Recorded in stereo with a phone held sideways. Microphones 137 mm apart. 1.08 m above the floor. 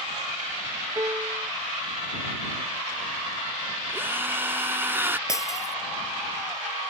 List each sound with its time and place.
0.9 s a piano: 25° right (ahead or behind)
3.9 s a drill: 15° right (ahead or behind)
5.3 s breaking glass: 25° left (ahead or behind)